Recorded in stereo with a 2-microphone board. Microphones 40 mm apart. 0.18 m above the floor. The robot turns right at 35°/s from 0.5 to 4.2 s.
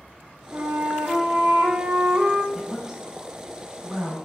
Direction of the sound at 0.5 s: 90° right.